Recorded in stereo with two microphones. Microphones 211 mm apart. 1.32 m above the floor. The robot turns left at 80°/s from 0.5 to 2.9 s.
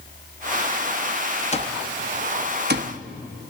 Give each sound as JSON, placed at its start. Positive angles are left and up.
{"t": 1.5, "sound": "an alarm clock", "side_deg": 30, "distance_m": 1.0}